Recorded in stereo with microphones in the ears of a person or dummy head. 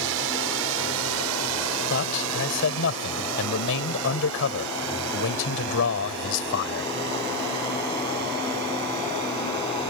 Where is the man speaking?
70° left (ahead or behind).